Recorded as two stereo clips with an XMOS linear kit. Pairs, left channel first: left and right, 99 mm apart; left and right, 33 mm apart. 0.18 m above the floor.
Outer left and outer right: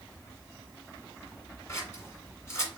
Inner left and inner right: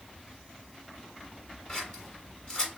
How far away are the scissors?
About 1.5 m.